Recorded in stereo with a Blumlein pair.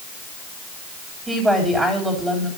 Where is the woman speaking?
5° right, 4 m.